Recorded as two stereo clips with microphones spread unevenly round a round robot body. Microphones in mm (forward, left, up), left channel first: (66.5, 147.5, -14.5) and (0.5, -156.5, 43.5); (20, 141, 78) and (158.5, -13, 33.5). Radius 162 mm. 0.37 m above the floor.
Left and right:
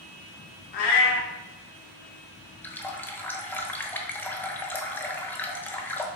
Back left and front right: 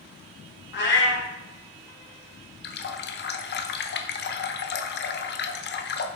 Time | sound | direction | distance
0.7 | a cat meowing | 95° left | 2.5 m
2.6 | a running tap | 145° left | 0.8 m